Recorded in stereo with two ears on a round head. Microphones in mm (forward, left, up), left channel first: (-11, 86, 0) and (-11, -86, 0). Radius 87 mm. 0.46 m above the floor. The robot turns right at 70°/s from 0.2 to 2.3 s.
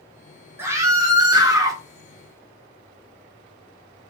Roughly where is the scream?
Centre.